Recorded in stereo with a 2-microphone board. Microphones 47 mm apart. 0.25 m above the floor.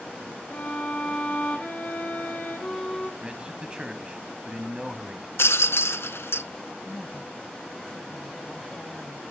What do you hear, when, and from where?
0.5 s a violin: 30° left (ahead or behind), 8 m
3.2 s a man speaking: 20° right (ahead or behind), 1.3 m
5.4 s a rattle: 65° left (ahead or behind), 0.6 m
6.8 s a woman speaking: 20° left (ahead or behind), 1.2 m